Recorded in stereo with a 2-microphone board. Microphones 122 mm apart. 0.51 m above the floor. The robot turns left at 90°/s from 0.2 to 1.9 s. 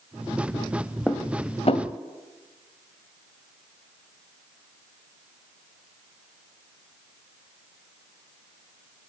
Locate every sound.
1.1 s dishes clattering: centre (ahead or behind), 1.5 m; by 1.9 s 70° left (ahead or behind), 1.5 m